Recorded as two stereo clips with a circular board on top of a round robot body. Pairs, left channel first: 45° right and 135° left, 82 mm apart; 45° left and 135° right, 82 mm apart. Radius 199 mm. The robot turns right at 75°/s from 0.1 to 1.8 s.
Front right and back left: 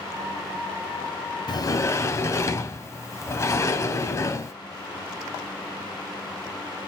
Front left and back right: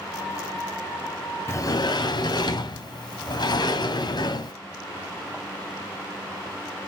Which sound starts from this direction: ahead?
A sliding door, at 1.5 s.